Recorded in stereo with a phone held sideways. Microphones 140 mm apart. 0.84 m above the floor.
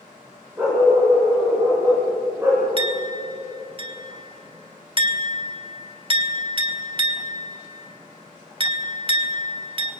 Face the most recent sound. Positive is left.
turn(degrees=-35)  # may be behind; listen again after turning